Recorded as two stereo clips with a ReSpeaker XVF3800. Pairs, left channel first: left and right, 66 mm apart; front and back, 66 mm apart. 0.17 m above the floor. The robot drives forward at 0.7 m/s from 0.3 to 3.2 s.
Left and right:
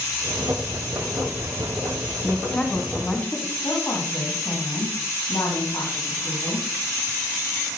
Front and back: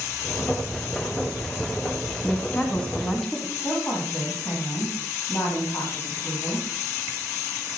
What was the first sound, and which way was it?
A woman speaking, 30° left.